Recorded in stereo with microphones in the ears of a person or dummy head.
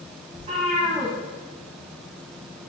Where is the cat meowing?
30° right (ahead or behind), 1.4 m.